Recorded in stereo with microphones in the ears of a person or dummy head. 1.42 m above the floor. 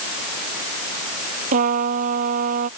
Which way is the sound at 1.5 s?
40° right (ahead or behind).